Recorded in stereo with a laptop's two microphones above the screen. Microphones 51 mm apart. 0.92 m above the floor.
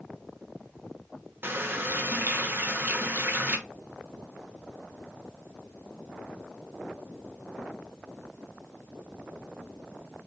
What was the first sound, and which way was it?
A running tap, 50° right (ahead or behind).